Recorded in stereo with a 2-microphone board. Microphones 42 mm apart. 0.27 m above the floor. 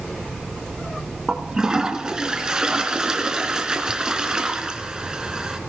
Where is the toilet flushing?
20° right (ahead or behind), 1.7 m.